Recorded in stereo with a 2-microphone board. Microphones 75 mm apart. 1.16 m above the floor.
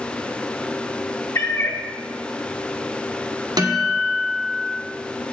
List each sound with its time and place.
1.4 s a cat meowing: 40° left (ahead or behind), 1.1 m
3.6 s a guitar: 60° right (ahead or behind), 2.0 m